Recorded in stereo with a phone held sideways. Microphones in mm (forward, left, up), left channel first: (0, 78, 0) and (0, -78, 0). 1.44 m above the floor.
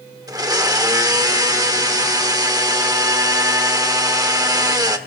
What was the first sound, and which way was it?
A blender, 20° right (ahead or behind).